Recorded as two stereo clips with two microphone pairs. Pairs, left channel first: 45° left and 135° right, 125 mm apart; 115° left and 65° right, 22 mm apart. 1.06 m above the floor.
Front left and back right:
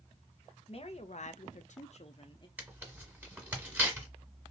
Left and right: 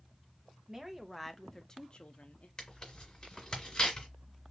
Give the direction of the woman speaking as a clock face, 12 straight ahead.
12 o'clock.